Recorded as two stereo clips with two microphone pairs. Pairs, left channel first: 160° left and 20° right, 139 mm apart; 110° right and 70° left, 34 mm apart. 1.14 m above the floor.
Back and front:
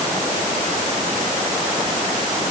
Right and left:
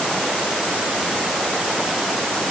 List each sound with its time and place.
Only background noise.